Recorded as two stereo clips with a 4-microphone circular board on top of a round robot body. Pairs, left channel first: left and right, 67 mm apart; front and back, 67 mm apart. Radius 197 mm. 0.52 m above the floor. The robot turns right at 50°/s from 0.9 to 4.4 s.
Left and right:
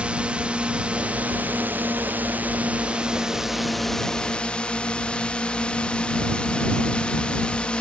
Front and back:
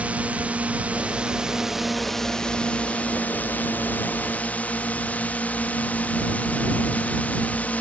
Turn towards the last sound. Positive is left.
turn(degrees=30)